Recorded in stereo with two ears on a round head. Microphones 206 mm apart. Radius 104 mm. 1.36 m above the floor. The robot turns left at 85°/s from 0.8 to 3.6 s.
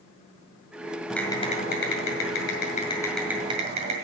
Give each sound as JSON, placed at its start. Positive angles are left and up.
{"t": 1.1, "sound": "typing on a keyboard", "azimuth_deg": 180, "distance_m": 2.0}